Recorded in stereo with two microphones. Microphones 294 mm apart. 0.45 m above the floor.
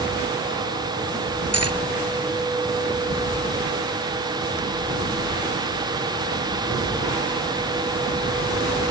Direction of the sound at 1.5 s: 55° right (ahead or behind).